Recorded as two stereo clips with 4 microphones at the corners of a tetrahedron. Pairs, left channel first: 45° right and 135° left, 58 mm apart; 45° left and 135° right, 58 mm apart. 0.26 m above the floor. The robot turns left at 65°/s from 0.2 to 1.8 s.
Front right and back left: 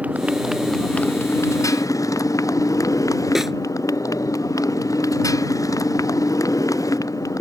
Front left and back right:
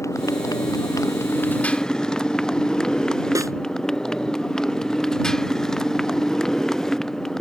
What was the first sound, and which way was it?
A motorcycle, 70° left.